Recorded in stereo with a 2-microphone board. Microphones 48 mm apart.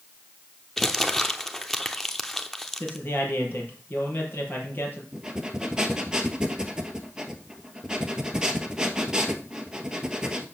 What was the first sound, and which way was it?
Crumpling, 5° left (ahead or behind).